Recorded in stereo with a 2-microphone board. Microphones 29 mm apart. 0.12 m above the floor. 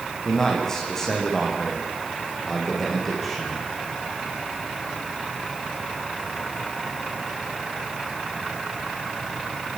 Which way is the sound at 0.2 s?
20° left (ahead or behind).